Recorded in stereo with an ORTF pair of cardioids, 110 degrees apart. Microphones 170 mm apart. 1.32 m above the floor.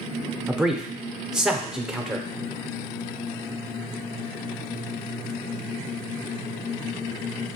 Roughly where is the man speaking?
Ahead.